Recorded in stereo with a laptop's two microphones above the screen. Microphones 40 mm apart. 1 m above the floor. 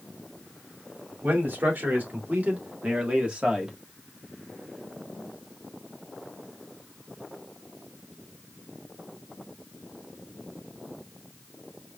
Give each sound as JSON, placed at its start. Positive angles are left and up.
{"t": 1.2, "sound": "a man speaking", "side_deg": -55, "distance_m": 2.5}